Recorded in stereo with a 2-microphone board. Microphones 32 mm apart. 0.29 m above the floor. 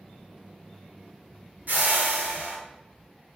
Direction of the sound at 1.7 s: 60° right (ahead or behind).